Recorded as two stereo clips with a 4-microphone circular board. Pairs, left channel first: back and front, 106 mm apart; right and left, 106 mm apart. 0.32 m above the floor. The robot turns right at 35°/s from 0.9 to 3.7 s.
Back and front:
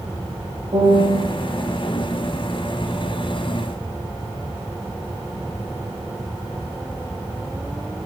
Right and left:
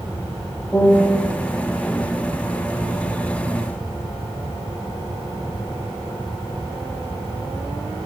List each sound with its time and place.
0.7 s a piano: 20° right, 1.1 m; by 1.2 s 10° right, 1.1 m